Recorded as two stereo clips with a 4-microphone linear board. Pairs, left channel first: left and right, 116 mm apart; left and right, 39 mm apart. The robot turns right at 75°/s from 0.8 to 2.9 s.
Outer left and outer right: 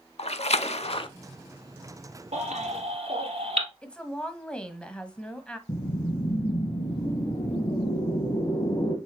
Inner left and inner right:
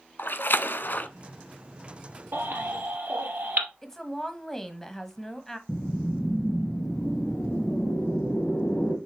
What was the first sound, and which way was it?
A splash, 70° left (ahead or behind).